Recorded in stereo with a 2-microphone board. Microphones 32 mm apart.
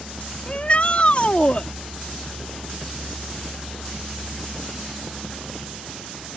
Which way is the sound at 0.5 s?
40° left (ahead or behind).